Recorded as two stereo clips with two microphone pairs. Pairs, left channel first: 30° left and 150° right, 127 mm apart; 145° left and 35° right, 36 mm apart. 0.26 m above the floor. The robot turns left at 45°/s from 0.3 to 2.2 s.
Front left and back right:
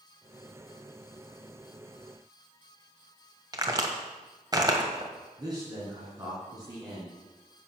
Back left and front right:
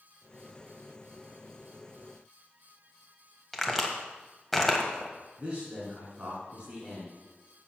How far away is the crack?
About 1.4 m.